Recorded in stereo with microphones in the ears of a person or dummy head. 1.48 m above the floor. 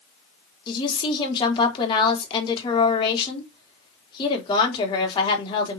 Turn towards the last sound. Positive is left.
turn(degrees=30)  # may be behind; listen again after turning